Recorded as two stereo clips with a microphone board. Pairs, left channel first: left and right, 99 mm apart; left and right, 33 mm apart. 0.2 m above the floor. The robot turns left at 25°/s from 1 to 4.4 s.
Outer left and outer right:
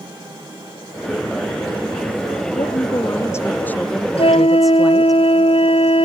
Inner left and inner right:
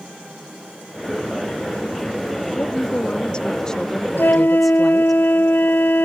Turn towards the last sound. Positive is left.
turn(degrees=80)